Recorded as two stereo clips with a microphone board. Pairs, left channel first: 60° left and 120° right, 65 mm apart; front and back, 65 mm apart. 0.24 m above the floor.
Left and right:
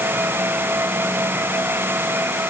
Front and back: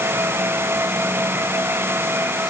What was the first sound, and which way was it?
Only background noise.